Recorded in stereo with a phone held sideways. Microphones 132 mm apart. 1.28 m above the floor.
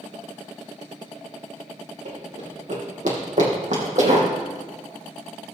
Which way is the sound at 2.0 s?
65° right (ahead or behind).